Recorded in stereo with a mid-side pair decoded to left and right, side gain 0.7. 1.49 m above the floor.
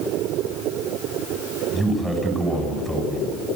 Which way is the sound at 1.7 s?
5° right.